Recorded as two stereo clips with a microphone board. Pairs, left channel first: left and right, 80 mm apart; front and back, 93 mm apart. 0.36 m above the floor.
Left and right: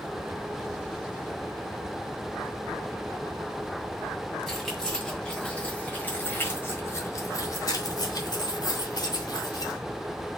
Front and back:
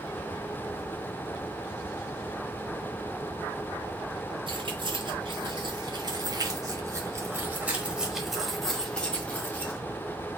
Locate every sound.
4.5 s keys jangling: 175° left, 2.0 m; by 9.8 s 65° left, 1.7 m